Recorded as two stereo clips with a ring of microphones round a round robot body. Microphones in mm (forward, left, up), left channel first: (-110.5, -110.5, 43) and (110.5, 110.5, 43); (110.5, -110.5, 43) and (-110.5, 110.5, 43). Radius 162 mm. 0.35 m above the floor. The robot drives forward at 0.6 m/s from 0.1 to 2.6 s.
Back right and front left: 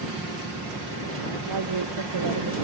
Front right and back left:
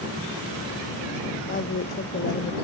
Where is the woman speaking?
15° left; by 2.5 s 20° left.